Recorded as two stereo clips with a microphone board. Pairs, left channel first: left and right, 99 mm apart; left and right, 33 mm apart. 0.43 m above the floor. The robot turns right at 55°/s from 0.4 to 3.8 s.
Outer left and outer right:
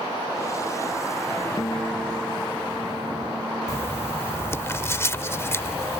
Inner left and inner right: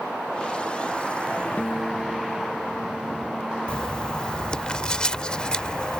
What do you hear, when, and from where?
1.6 s a guitar: 130° left; by 4.7 s 105° right
3.7 s writing: 30° left (ahead or behind); by 6.0 s 25° left (ahead or behind)